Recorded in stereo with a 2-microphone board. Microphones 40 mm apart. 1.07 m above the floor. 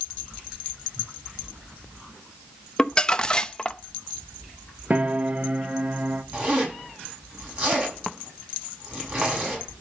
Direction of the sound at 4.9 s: 35° right (ahead or behind).